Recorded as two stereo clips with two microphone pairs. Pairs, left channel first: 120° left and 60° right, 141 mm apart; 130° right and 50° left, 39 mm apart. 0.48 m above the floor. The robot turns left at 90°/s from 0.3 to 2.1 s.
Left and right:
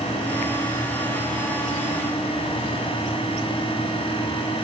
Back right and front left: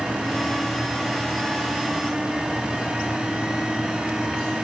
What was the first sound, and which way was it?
Only background noise.